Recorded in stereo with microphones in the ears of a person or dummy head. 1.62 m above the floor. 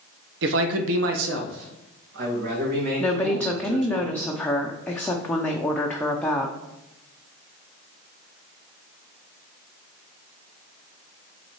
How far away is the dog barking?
I don't hear a dog barking.